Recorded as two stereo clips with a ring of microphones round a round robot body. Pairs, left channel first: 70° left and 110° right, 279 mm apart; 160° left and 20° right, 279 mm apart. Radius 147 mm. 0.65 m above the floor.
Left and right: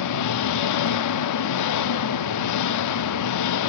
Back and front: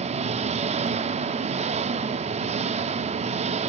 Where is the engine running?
45° left, 0.8 m.